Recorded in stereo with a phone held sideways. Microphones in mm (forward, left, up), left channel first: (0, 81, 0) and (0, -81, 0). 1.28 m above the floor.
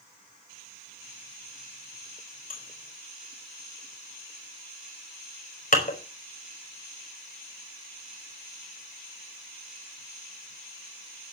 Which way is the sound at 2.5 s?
55° left (ahead or behind).